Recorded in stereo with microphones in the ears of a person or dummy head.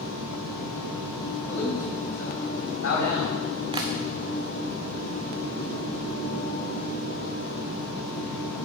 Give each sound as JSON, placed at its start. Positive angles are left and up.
{"t": 1.5, "sound": "a man speaking", "side_deg": 70, "distance_m": 4.5}
{"t": 3.7, "sound": "tapping", "side_deg": -25, "distance_m": 0.8}